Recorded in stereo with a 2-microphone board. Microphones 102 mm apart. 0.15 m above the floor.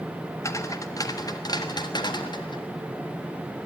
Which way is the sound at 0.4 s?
30° left (ahead or behind).